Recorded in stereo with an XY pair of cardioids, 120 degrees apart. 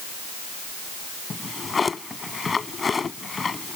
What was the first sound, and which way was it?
A drawer, 25° left.